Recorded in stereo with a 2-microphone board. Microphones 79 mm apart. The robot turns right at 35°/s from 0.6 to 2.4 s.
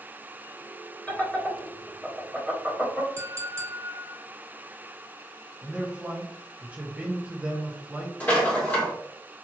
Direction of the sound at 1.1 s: 15° left (ahead or behind).